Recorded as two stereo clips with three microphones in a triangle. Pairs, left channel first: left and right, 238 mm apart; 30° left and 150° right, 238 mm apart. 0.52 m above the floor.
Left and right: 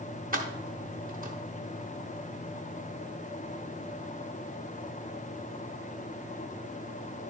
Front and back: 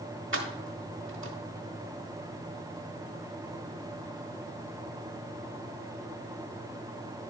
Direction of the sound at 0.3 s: 140° right.